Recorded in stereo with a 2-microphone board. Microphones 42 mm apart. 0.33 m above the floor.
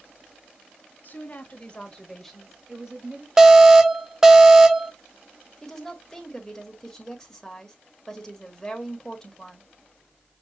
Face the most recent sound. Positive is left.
turn(degrees=10)  # may be behind; listen again after turning